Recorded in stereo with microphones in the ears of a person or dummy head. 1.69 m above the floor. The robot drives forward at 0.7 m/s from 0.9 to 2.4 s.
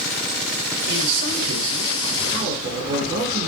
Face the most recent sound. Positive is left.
turn(degrees=-40)  # may be behind; listen again after turning